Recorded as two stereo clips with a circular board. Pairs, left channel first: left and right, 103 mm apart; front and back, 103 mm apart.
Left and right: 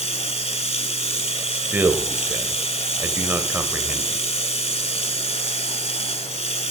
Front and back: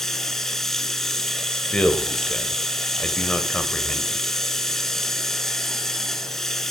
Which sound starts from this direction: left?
Running water, at 0.0 s.